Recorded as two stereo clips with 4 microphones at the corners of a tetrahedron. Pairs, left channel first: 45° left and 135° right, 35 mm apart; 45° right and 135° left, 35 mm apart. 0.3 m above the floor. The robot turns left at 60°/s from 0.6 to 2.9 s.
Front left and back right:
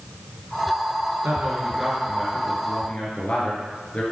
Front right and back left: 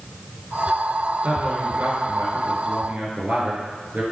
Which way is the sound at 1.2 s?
165° right.